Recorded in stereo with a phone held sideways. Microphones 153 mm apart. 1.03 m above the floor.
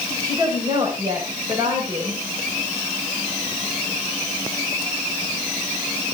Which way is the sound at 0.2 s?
25° right (ahead or behind).